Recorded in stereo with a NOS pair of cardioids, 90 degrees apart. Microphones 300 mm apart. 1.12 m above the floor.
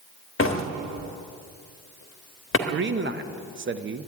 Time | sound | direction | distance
0.4 | a door slam | 45° left | 1.2 m
2.7 | a man speaking | 40° right | 0.9 m